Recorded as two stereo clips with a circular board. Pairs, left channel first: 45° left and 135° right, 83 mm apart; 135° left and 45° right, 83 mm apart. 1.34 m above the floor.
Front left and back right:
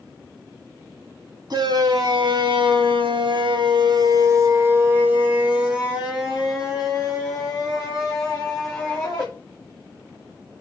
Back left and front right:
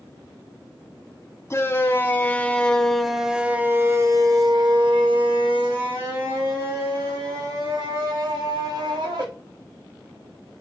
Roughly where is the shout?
Behind.